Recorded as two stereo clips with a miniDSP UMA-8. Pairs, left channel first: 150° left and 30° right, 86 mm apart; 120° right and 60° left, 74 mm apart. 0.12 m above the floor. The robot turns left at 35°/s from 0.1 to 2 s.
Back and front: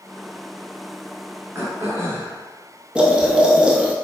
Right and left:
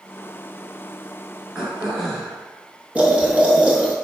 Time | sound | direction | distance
1.6 | throat clearing | 10° right | 1.1 m
3.0 | boiling | 25° left | 0.7 m